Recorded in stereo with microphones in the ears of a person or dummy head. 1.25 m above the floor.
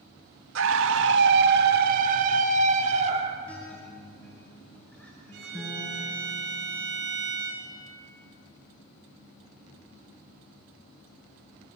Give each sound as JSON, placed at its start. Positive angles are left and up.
{"t": 0.6, "sound": "a scream", "side_deg": -85, "distance_m": 1.8}
{"t": 3.5, "sound": "a guitar", "side_deg": 5, "distance_m": 7.0}
{"t": 5.3, "sound": "a violin", "side_deg": -70, "distance_m": 9.0}